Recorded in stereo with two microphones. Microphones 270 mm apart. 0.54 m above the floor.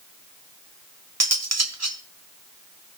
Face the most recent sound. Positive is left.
turn(degrees=-65)  # may be behind; listen again after turning